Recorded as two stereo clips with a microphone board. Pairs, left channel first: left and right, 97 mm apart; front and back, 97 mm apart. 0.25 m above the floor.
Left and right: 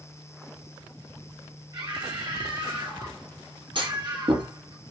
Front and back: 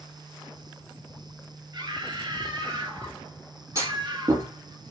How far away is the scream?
About 4.5 m.